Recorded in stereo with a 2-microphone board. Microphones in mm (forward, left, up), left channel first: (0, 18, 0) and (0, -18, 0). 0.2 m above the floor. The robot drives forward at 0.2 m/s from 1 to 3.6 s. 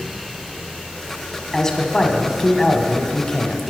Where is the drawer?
I don't hear a drawer.